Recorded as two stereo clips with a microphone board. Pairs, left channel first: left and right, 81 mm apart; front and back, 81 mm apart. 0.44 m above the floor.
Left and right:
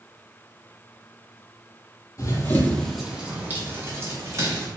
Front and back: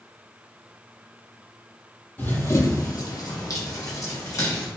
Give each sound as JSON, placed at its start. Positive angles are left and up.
{"t": 2.2, "sound": "running footsteps", "azimuth_deg": 60, "distance_m": 0.7}